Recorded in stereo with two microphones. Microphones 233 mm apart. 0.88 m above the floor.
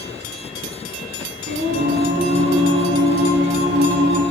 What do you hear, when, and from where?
1.5 s singing: 65° right (ahead or behind), 5 m